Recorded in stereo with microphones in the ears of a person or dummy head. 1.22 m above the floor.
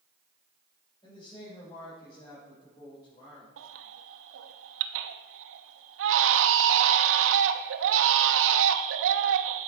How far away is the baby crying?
About 0.9 m.